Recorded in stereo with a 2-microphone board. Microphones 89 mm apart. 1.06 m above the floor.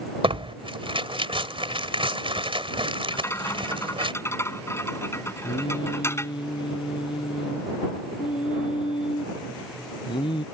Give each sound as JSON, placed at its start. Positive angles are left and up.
{"t": 0.2, "sound": "tearing paper", "side_deg": -80}
{"t": 3.1, "sound": "a rattle", "side_deg": 30}
{"t": 5.4, "sound": "singing", "side_deg": 65}